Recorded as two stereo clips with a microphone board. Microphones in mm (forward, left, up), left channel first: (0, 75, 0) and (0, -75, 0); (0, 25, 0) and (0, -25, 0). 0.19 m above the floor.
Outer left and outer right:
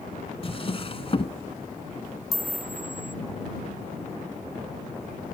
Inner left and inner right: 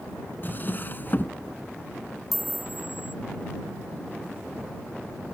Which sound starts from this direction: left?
A drawer, at 0.4 s.